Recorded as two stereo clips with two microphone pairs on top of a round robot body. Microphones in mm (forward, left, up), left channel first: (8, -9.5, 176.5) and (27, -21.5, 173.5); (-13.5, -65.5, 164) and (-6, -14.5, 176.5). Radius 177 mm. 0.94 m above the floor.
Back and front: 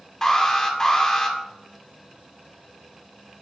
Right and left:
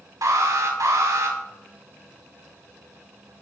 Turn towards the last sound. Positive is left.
turn(degrees=75)